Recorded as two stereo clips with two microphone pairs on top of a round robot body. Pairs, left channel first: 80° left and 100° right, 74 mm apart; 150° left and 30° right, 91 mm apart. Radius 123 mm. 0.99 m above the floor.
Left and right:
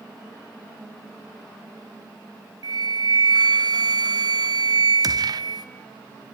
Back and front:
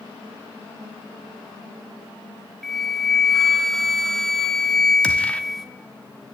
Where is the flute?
125° right, 1.4 m.